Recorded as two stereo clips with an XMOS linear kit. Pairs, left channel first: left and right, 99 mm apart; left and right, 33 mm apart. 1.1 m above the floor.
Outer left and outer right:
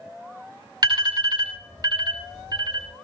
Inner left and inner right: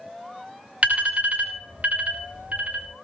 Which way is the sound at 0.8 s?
45° right (ahead or behind).